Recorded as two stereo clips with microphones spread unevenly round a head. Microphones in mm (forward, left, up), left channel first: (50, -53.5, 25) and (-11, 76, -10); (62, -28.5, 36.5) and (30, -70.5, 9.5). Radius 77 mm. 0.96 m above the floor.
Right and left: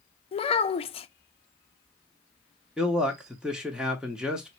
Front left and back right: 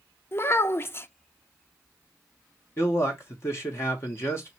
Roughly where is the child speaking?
Ahead.